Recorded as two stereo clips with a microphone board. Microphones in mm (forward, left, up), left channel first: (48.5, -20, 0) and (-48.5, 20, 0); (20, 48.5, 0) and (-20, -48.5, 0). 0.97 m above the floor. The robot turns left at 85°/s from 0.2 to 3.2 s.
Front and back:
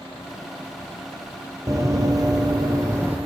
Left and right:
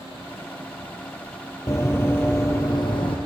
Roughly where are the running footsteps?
Behind left.